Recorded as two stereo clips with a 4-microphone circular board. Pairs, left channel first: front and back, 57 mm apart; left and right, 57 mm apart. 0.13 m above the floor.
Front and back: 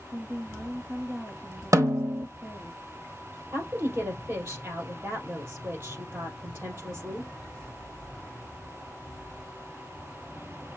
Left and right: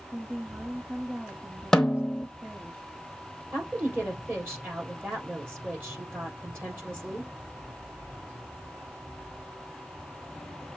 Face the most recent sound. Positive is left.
turn(degrees=-135)